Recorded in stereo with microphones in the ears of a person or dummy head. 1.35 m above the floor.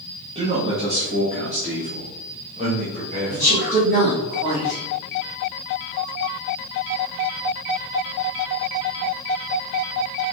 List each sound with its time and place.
0.3 s a man speaking: 30° right (ahead or behind), 1.4 m
3.3 s a woman speaking: 45° right (ahead or behind), 3 m